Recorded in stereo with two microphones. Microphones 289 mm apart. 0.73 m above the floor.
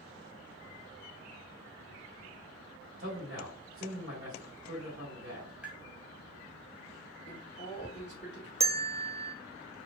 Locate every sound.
3.0 s a man speaking: 40° right (ahead or behind), 2.0 m
5.6 s tapping: 5° right (ahead or behind), 1.8 m
7.3 s a man speaking: 40° left (ahead or behind), 2.5 m
8.6 s a bell: 20° right (ahead or behind), 0.5 m